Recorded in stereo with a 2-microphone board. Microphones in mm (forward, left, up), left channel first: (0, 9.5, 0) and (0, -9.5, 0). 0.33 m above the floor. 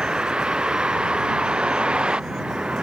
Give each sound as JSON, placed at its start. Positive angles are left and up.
{"t": 0.0, "sound": "a vehicle", "side_deg": -60}